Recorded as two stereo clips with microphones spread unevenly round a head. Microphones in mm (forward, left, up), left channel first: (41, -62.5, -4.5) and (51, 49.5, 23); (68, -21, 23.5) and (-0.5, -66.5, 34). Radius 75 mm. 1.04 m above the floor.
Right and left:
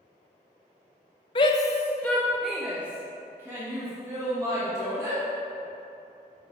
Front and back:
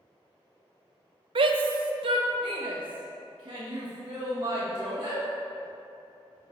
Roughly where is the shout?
Behind right.